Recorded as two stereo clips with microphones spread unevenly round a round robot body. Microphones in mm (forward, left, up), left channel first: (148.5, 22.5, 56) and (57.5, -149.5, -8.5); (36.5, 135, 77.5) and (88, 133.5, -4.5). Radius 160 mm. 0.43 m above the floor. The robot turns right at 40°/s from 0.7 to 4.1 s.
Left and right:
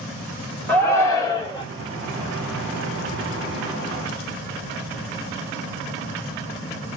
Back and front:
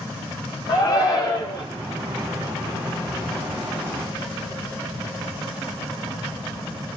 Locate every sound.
0.7 s a shout: 55° right, 0.9 m; by 1.6 s 15° right, 0.9 m